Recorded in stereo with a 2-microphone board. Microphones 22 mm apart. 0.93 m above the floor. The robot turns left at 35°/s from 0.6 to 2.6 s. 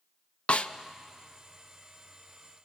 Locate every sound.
0.5 s a snare drum: 65° left (ahead or behind), 0.7 m